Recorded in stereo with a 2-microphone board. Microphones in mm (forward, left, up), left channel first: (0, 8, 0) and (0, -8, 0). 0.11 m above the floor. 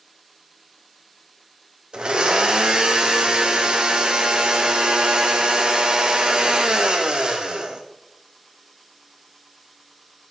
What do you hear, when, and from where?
1.9 s a blender: 85° right, 1.6 m